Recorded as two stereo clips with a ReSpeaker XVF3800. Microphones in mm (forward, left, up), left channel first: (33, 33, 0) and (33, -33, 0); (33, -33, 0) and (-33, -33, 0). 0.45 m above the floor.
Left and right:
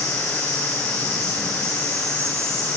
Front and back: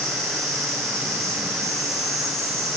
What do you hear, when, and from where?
0.0 s an insect: 140° right, 7 m